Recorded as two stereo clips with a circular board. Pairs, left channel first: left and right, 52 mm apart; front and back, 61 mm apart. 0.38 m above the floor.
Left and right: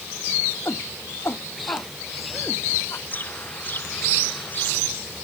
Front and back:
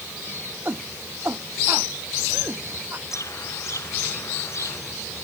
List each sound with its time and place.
0.7 s a shout: 125° left
3.1 s a bird: 35° left